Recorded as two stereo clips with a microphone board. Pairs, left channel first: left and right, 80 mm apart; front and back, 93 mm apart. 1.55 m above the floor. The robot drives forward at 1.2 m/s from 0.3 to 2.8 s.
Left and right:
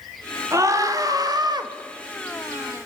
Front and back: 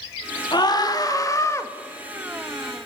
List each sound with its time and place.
0.5 s a scream: 40° right, 3.5 m; by 1.7 s 65° right, 2.5 m